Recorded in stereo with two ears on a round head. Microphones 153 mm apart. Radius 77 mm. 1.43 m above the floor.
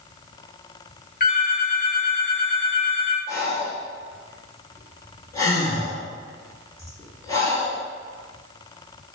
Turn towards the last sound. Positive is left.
turn(degrees=20)  # may be behind; listen again after turning